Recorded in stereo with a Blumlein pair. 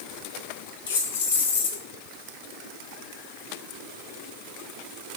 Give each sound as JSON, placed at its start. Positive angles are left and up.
{"t": 0.9, "sound": "keys jangling", "azimuth_deg": 60, "distance_m": 2.0}